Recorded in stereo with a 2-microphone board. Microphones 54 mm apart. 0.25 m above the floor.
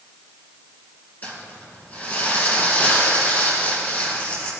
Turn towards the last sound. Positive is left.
turn(degrees=30)  # may be behind; listen again after turning